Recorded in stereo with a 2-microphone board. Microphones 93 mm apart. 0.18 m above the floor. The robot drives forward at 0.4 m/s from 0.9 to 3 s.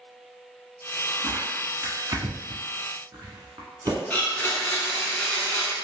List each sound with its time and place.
1.2 s tearing paper: 35° right (ahead or behind), 1.0 m; by 4.0 s 40° right (ahead or behind), 0.9 m
4.1 s a blender: 20° left (ahead or behind), 0.6 m